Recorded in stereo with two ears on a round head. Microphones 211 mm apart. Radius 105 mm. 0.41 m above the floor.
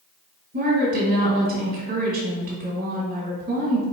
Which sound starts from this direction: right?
A woman speaking, at 0.5 s.